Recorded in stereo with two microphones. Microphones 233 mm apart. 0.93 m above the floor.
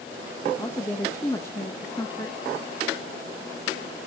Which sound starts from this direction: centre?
A woman speaking, at 0.6 s.